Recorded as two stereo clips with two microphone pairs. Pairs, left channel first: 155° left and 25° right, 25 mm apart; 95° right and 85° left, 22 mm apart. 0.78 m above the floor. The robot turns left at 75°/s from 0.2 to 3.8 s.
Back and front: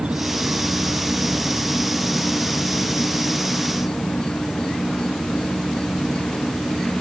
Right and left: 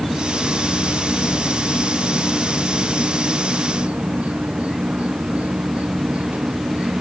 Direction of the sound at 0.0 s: 5° left.